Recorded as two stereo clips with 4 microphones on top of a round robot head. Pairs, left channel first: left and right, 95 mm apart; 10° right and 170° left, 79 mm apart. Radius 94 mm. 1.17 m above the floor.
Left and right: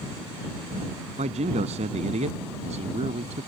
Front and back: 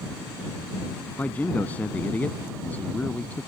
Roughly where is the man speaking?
Right.